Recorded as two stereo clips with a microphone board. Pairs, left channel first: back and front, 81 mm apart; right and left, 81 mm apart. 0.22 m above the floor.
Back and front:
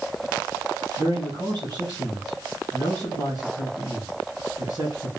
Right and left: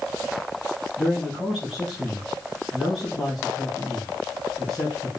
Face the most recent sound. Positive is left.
turn(degrees=5)